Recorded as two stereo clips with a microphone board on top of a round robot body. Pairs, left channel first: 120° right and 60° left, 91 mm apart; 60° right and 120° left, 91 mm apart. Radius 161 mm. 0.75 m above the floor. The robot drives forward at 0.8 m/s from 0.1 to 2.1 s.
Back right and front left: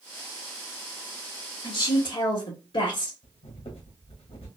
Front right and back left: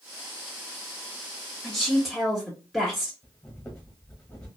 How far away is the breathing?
About 1.1 m.